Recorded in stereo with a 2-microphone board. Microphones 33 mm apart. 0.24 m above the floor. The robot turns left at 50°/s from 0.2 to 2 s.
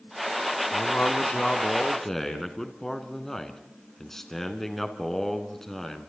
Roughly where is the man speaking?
Left.